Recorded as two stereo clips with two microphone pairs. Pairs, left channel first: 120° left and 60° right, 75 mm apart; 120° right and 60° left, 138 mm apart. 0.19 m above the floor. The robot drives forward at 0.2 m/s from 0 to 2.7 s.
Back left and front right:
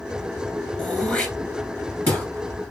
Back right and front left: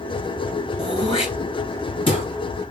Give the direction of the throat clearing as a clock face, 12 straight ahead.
6 o'clock.